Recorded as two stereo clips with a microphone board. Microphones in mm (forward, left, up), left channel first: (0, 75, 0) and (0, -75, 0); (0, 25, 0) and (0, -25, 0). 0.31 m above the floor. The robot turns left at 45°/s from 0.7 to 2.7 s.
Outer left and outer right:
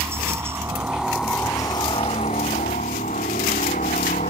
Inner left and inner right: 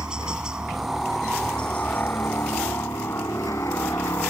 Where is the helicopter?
160° right; by 4.3 s 110° left.